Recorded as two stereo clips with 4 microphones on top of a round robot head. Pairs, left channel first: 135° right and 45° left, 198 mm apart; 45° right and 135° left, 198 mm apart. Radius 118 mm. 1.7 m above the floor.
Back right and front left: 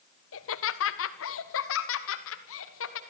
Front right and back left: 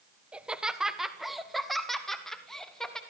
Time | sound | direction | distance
0.3 | laughter | 140° right | 1.5 m